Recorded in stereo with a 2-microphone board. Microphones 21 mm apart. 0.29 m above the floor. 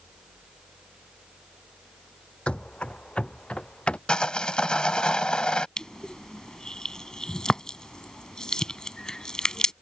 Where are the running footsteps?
65° left (ahead or behind); by 4.0 s 60° left (ahead or behind).